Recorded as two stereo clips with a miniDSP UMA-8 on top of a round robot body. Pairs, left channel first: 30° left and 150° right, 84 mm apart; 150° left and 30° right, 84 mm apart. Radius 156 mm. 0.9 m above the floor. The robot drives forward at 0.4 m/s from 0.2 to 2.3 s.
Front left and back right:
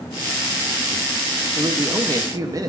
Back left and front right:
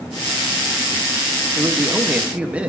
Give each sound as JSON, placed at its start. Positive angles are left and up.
{"t": 1.6, "sound": "a man speaking", "azimuth_deg": -95, "distance_m": 1.4}